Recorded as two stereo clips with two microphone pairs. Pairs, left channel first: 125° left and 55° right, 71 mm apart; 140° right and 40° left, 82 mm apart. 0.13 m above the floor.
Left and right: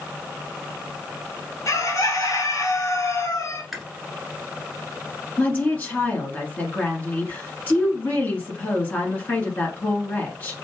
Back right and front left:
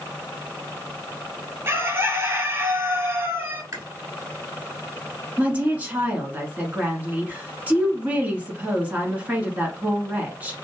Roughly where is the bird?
Left.